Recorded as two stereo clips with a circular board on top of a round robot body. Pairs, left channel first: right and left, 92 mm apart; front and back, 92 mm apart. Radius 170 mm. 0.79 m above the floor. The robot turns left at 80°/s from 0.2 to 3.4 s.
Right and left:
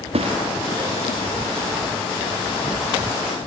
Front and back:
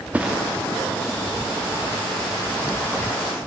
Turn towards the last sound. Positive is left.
turn(degrees=-150)